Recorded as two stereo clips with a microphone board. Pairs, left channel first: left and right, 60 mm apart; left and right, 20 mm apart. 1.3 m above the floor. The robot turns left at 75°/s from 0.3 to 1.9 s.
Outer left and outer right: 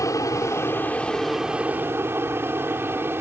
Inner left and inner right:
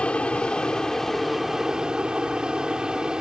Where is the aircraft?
65° left (ahead or behind); by 3.2 s 40° right (ahead or behind).